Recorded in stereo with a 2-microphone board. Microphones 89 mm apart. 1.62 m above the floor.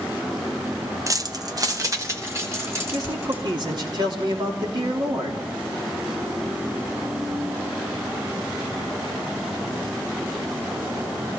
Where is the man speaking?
55° right (ahead or behind), 3 m.